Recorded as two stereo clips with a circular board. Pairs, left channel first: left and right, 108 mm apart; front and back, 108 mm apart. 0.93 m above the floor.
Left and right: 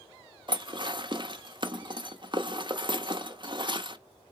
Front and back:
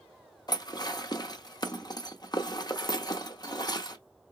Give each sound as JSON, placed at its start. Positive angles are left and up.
{"t": 0.5, "sound": "dishes clattering", "azimuth_deg": -50, "distance_m": 0.7}